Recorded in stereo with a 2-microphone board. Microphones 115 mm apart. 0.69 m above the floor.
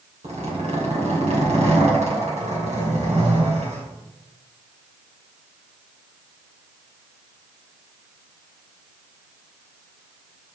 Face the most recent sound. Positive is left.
turn(degrees=-80)